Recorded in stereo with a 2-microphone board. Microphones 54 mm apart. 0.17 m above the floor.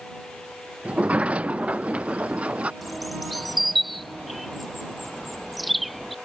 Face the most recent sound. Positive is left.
turn(degrees=0)  # may be behind; listen again after turning